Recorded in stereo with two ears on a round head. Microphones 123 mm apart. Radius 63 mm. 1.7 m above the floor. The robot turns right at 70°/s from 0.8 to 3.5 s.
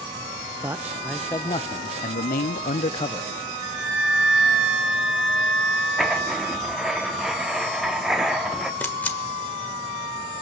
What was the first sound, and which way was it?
A man speaking, 15° right.